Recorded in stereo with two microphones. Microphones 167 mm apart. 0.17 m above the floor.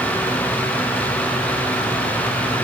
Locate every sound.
Only background noise.